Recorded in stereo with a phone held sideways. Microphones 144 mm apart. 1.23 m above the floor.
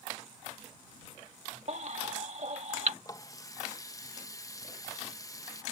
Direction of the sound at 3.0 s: 25° left (ahead or behind).